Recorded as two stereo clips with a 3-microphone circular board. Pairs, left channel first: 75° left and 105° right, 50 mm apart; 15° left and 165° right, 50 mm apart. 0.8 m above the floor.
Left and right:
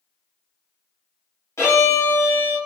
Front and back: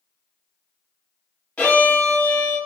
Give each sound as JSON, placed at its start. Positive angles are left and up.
{"t": 1.6, "sound": "a violin", "azimuth_deg": 75, "distance_m": 1.1}